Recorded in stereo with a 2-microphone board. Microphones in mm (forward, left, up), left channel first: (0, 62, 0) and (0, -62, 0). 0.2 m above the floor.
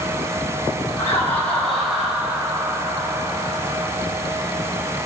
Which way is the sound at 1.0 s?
25° left (ahead or behind).